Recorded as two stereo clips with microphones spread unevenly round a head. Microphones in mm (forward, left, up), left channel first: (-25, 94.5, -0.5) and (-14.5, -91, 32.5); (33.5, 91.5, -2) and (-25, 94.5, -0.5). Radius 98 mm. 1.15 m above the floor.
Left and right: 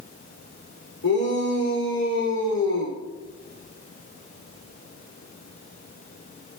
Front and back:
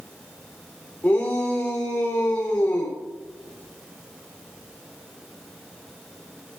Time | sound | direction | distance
1.0 | a shout | 60° left | 3.5 m